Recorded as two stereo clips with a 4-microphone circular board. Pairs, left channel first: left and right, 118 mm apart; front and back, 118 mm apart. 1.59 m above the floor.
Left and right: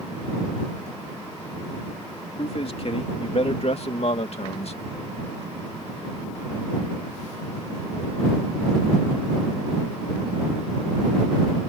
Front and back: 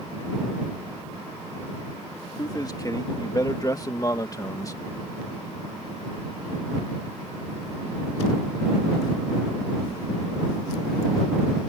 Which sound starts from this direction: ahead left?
A man speaking, at 2.4 s.